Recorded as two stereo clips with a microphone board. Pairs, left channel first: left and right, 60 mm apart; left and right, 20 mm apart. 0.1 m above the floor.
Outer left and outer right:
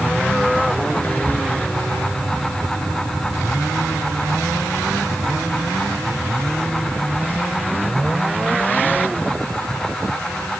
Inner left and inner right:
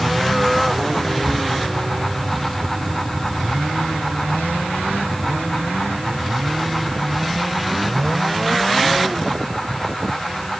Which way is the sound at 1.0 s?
30° left (ahead or behind).